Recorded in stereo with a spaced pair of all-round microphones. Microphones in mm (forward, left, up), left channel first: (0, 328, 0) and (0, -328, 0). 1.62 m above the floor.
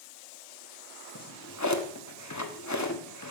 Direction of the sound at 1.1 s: 25° left (ahead or behind).